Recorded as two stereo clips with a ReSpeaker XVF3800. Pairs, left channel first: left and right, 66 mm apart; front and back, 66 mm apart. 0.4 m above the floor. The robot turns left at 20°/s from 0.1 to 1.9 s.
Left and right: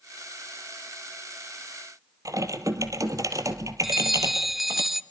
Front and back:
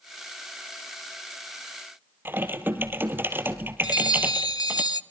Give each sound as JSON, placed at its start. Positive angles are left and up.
{"t": 2.2, "sound": "typing on a keyboard", "azimuth_deg": -120, "distance_m": 1.8}
{"t": 3.8, "sound": "a bell", "azimuth_deg": -5, "distance_m": 0.5}